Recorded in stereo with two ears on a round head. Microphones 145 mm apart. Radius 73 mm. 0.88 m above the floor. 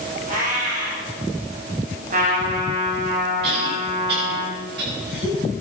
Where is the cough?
70° right (ahead or behind), 6 m.